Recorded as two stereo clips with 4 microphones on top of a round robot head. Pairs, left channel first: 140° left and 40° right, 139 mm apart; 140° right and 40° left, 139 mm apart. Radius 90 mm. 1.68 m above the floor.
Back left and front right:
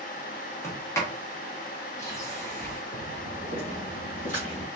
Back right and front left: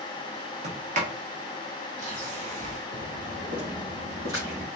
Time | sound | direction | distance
0.6 | a sliding door | 75° left | 1.1 m
2.9 | footsteps | 85° left | 2 m